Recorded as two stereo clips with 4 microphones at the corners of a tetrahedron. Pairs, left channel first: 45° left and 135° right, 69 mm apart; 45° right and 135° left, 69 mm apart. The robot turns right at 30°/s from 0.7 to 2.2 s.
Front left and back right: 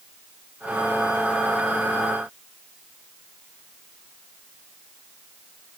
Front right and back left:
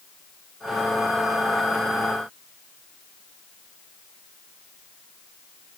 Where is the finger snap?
No finger snap in this recording.